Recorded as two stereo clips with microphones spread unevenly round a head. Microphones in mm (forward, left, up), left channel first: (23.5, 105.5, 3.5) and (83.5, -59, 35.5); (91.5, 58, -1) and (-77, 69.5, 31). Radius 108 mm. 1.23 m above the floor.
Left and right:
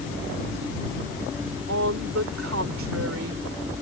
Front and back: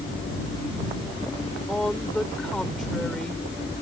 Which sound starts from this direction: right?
A woman speaking, at 1.7 s.